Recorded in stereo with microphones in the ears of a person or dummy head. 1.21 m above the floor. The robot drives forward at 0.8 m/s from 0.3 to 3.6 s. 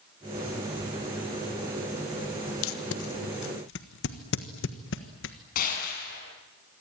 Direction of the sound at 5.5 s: 50° left (ahead or behind).